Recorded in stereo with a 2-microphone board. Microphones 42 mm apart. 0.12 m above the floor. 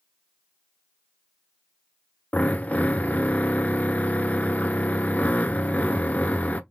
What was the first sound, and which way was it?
A drill, 40° left (ahead or behind).